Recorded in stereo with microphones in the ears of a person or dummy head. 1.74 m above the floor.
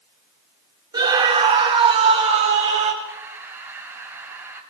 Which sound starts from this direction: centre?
Breathing, at 3.0 s.